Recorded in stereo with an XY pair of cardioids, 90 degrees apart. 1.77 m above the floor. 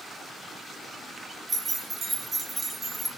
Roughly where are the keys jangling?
Ahead right.